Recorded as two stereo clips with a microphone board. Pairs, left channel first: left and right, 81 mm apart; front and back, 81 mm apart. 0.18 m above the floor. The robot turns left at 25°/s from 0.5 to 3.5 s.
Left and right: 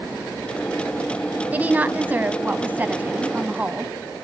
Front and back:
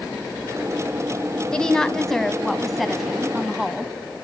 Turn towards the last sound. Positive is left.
turn(degrees=-110)